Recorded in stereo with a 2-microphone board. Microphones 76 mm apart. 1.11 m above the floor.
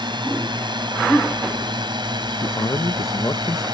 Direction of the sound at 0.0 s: 85° right.